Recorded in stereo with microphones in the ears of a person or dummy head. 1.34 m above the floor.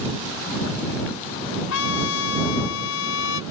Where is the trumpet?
75° left (ahead or behind).